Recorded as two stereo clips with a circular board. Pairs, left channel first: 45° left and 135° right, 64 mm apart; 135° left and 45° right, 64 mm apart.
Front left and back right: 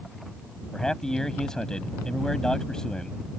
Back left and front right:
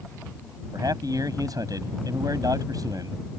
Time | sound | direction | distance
0.7 | a man speaking | 35° right | ?